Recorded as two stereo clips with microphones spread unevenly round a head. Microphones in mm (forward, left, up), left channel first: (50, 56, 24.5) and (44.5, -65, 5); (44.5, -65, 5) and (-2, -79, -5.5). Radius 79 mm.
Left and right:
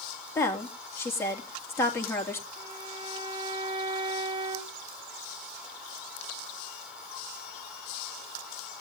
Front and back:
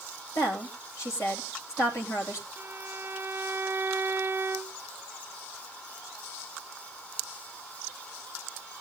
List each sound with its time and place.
0.3 s a woman speaking: 20° left, 3 m
2.6 s a violin: 150° right, 1.0 m